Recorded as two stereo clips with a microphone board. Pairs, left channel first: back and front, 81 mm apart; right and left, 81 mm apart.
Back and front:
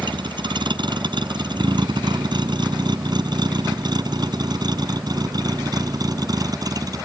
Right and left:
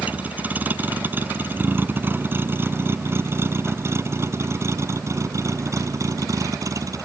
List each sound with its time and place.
0.0 s a vehicle: 20° left; by 7.1 s 40° left